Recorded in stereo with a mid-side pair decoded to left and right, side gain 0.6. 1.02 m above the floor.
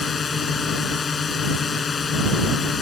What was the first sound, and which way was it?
A drone, 30° left.